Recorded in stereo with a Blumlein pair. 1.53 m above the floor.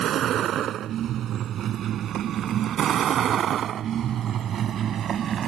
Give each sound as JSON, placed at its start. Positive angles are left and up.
{"t": 0.0, "sound": "a vehicle", "azimuth_deg": -30}